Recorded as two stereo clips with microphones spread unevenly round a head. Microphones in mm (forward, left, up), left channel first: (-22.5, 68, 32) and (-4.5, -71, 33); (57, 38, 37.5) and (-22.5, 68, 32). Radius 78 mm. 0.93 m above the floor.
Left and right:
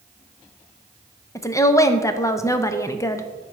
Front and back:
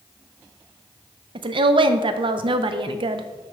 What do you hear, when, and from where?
1.4 s a woman speaking: 165° left, 0.6 m